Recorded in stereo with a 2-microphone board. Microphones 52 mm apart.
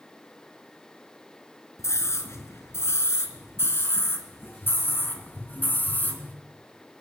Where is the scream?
65° left (ahead or behind), 4.5 m; by 6.3 s 35° left (ahead or behind), 3.5 m.